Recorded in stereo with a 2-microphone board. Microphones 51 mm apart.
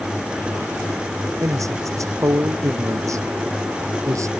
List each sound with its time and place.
1.4 s a man speaking: 85° right; by 4.3 s 80° right